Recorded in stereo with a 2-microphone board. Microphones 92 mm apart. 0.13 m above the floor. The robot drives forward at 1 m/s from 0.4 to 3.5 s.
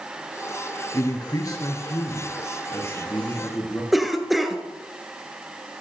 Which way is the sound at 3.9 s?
Centre (ahead or behind).